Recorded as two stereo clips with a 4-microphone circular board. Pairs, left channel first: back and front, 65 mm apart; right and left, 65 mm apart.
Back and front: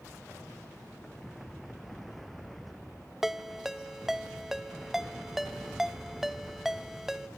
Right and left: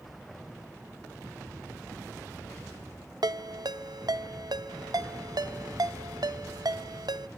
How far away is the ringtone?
About 1.0 m.